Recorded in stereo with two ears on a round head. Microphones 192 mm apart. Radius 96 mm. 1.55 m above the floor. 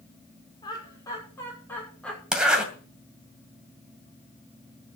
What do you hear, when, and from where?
0.6 s laughter: 20° left (ahead or behind), 5.5 m; by 2.2 s 5° left (ahead or behind), 5.5 m
2.3 s a zipper: 5° right (ahead or behind), 2.5 m